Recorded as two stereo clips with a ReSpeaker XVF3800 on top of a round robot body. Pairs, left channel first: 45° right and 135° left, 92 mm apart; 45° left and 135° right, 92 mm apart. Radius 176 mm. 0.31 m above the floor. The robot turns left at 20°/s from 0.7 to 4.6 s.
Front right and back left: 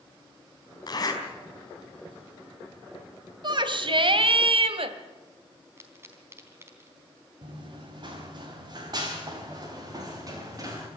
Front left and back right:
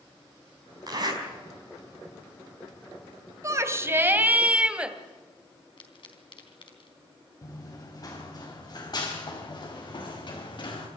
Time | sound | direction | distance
0.9 | a zipper | 90° right | 4.5 m
3.4 | a shout | 170° left | 2.5 m
5.8 | a pop | 70° left | 3.5 m
7.4 | running footsteps | 100° left | 5 m